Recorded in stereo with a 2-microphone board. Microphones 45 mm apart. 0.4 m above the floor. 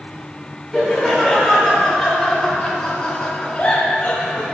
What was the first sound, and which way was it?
Laughter, 5° left (ahead or behind).